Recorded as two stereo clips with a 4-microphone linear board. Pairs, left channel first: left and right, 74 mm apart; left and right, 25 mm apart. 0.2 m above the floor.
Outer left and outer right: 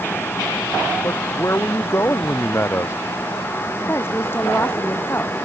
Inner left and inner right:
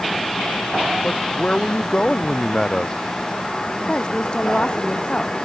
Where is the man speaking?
40° left (ahead or behind); by 3.0 s 35° left (ahead or behind).